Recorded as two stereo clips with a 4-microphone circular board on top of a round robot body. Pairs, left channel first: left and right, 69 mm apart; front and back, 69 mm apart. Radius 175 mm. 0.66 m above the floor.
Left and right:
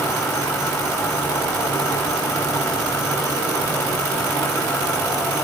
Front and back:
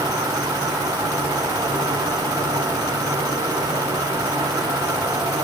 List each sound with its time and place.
0.0 s an insect: 145° left, 1.1 m